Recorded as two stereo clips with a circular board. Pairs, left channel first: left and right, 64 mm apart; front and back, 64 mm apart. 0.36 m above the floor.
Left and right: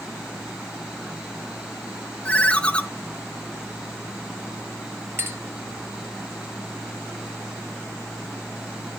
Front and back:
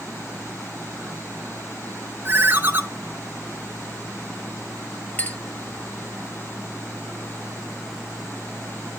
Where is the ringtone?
150° left, 0.8 m.